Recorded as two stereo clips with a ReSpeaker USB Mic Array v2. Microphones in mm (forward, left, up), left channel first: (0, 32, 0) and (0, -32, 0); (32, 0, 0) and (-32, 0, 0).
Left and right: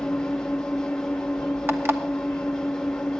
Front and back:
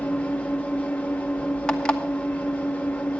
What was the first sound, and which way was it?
An engine running, 25° left.